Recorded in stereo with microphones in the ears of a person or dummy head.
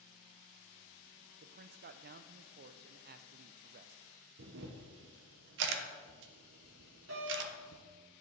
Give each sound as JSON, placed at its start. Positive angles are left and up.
{"t": 1.4, "sound": "a man speaking", "side_deg": -50, "distance_m": 0.5}
{"t": 4.4, "sound": "a camera shutter", "side_deg": -65, "distance_m": 0.9}
{"t": 7.1, "sound": "a doorbell", "side_deg": -85, "distance_m": 3.0}